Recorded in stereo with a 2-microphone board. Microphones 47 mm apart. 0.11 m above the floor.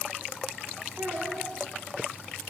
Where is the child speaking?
50° right (ahead or behind), 8 m.